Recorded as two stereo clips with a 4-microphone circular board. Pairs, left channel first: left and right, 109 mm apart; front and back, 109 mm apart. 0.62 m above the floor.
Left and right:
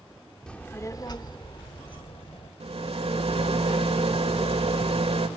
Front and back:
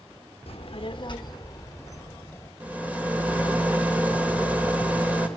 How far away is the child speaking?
About 1.0 m.